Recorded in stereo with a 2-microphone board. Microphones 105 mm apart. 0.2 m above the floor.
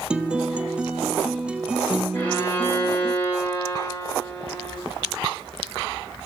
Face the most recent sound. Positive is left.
turn(degrees=20)  # may be behind; listen again after turning